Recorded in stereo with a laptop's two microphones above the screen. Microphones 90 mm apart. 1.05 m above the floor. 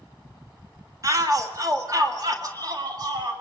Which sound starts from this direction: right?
A shout, at 1.0 s.